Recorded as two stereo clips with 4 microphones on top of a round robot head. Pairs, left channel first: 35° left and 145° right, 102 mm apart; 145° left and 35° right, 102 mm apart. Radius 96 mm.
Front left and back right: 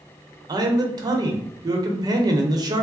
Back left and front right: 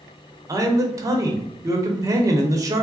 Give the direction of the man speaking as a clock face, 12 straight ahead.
3 o'clock.